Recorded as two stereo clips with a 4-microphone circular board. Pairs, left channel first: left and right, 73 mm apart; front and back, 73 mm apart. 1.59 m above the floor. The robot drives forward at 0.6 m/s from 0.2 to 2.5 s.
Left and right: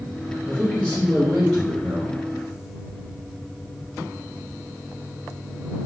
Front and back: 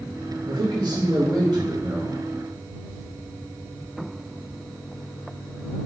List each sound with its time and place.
0.5 s a man speaking: 170° right, 2.5 m; by 2.2 s 175° right, 3.5 m